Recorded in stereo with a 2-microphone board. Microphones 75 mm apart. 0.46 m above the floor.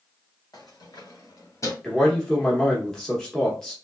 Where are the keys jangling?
65° left (ahead or behind), 1.6 m; by 1.7 s 45° left (ahead or behind), 1.0 m.